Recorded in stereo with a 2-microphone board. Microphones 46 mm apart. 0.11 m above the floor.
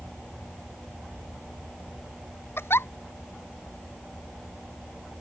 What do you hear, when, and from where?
2.6 s a giggle: 65° left (ahead or behind)